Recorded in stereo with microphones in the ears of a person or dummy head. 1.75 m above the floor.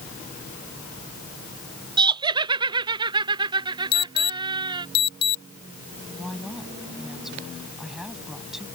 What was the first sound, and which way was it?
Laughter, 20° right (ahead or behind).